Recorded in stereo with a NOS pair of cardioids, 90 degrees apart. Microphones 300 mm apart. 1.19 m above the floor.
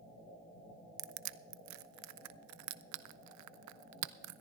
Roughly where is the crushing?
Right.